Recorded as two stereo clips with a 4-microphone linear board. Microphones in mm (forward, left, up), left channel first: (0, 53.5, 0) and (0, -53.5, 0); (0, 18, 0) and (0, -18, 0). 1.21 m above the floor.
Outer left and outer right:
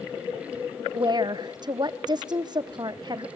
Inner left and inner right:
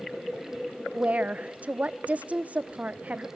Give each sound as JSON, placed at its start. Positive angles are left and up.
{"t": 0.9, "sound": "a woman speaking", "side_deg": -40, "distance_m": 0.9}